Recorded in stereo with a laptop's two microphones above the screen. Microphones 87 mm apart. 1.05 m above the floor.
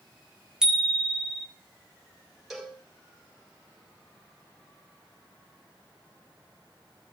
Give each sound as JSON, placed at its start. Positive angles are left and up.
{"t": 0.6, "sound": "a bicycle bell", "side_deg": -10, "distance_m": 2.5}
{"t": 2.5, "sound": "a cowbell", "side_deg": 0, "distance_m": 4.5}